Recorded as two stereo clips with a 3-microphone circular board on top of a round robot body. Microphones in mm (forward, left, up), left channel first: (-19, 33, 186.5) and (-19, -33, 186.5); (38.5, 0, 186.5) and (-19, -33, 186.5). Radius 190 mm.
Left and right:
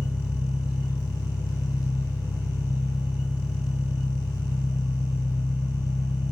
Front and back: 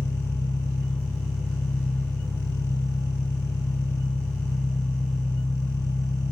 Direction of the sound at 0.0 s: 85° left.